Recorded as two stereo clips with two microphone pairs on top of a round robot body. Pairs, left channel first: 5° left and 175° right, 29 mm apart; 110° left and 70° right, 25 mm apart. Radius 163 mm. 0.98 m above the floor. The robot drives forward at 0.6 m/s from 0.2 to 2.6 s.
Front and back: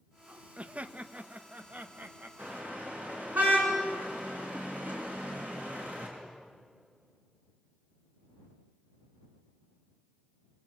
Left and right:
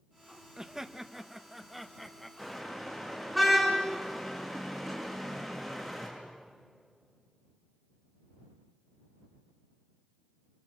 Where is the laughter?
135° right, 1.0 m; by 2.3 s 160° right, 1.9 m.